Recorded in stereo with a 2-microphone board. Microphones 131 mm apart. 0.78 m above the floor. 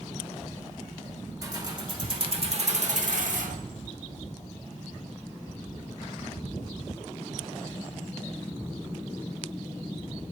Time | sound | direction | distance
1.4 | keys jangling | 30° right (ahead or behind) | 1.6 m